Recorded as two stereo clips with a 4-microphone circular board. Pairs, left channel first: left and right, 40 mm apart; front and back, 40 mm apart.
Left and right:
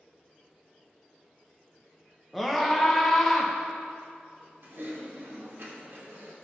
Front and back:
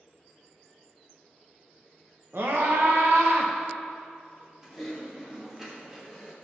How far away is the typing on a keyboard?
About 1.5 m.